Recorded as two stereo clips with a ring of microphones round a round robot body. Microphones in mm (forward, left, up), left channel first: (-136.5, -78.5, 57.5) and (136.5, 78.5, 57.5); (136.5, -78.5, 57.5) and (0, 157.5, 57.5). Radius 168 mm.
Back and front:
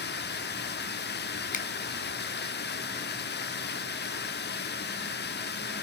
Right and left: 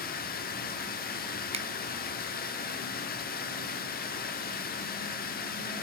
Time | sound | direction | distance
0.0 | running water | 105° right | 1.0 m
1.5 | a finger snap | 165° left | 0.7 m